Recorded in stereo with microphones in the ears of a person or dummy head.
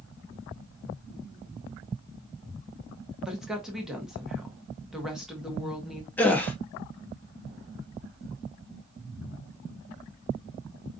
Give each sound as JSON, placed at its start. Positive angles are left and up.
{"t": 3.2, "sound": "a woman speaking", "side_deg": 0, "distance_m": 0.9}
{"t": 6.2, "sound": "a gasp", "side_deg": 5, "distance_m": 0.7}